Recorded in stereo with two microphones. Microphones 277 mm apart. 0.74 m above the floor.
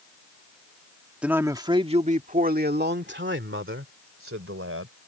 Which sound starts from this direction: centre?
A man speaking, at 1.2 s.